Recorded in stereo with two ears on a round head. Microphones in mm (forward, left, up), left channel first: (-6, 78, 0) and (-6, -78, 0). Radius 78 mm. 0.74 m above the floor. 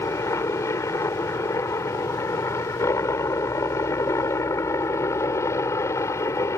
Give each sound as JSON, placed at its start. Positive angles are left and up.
{"t": 0.0, "sound": "a helicopter", "side_deg": 15}